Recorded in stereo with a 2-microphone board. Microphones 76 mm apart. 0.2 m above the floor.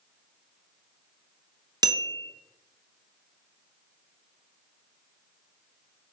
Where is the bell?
55° right (ahead or behind), 0.7 m.